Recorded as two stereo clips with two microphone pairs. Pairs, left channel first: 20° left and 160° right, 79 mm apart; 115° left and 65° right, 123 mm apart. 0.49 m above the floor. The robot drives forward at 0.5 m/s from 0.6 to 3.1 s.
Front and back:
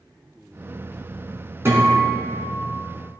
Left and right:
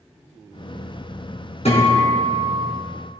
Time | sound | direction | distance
1.6 | a guitar | 145° left | 3.5 m